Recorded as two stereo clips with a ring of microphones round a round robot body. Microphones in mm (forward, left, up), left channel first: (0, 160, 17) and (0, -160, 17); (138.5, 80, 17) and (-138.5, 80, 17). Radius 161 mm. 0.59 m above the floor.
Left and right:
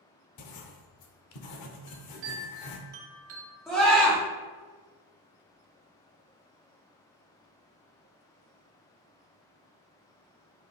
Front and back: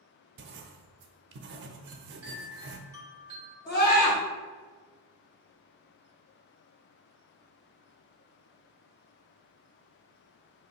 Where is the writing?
125° left, 0.5 m.